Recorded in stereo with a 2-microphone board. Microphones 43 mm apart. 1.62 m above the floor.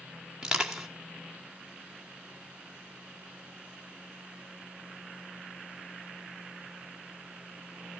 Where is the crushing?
15° right (ahead or behind), 2 m.